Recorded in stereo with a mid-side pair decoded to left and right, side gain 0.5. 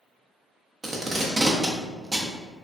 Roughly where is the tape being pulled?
Ahead right.